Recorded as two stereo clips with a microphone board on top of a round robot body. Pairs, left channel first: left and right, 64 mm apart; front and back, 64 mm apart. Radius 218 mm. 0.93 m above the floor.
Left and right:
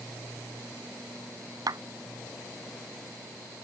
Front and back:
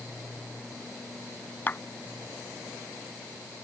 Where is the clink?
I don't hear a clink.